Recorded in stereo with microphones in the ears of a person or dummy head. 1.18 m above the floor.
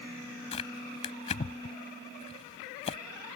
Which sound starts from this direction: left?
Tearing paper, at 0.5 s.